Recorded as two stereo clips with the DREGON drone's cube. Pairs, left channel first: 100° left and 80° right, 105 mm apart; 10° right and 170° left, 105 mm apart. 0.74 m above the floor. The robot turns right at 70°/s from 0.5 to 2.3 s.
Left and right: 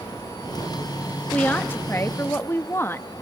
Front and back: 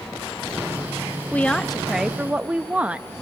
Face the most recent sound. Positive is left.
turn(degrees=110)